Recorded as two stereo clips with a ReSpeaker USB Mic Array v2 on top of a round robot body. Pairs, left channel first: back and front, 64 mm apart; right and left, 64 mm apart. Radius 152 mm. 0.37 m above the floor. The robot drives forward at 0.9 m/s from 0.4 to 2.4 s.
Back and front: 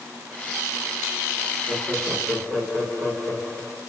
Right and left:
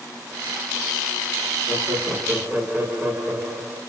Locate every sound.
1.7 s laughter: 55° left, 1.1 m; by 3.8 s 135° left, 1.2 m